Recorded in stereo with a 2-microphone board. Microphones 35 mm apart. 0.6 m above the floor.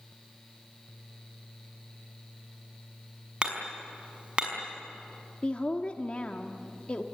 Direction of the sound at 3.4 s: 30° right (ahead or behind).